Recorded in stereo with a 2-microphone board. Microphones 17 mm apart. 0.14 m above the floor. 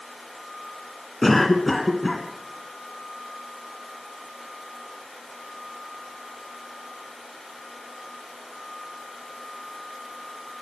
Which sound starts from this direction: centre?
A cough, at 1.2 s.